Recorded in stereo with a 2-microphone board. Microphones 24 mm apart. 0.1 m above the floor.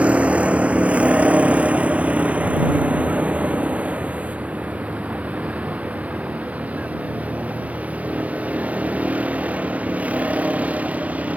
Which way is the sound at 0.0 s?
65° right (ahead or behind).